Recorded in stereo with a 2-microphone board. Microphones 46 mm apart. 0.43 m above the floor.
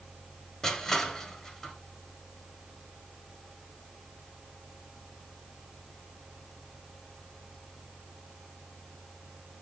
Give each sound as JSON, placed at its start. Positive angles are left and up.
{"t": 0.6, "sound": "crushing", "side_deg": 15, "distance_m": 1.5}